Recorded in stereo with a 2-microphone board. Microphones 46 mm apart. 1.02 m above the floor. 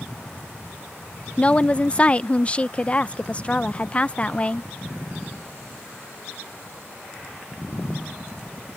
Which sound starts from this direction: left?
A woman speaking, at 1.4 s.